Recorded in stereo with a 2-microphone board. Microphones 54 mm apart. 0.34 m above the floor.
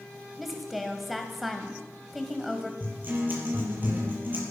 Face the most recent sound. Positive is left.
turn(degrees=-35)  # may be behind; listen again after turning